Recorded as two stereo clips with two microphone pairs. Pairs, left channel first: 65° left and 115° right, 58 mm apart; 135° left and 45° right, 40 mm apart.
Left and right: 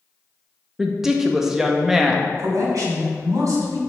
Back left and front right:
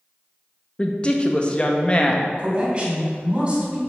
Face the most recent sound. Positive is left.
turn(degrees=-115)